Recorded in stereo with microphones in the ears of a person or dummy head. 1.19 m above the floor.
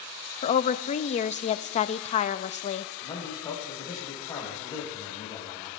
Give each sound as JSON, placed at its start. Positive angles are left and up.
{"t": 0.4, "sound": "a woman speaking", "side_deg": 25, "distance_m": 0.5}
{"t": 3.0, "sound": "a man speaking", "side_deg": 15, "distance_m": 4.0}